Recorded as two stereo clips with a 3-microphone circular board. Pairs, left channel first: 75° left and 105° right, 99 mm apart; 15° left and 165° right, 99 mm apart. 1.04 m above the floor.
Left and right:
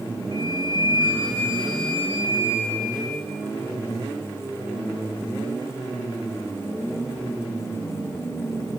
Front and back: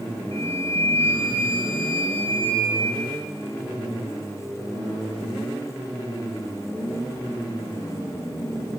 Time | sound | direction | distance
0.3 | a flute | 150° right | 6 m